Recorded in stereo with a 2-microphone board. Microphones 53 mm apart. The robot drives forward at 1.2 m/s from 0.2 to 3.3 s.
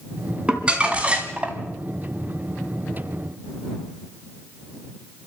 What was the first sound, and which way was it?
Crumpling, 20° right (ahead or behind).